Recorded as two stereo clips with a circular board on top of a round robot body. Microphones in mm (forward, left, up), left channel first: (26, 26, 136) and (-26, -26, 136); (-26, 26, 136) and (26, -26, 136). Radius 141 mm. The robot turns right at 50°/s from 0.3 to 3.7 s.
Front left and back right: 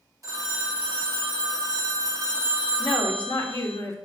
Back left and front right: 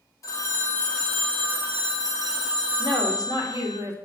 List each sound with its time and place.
0.2 s a phone ringing: straight behind, 1.9 m; by 3.8 s 10° right, 1.9 m
2.8 s a woman speaking: 40° right, 2.5 m; by 4.0 s 5° left, 2.5 m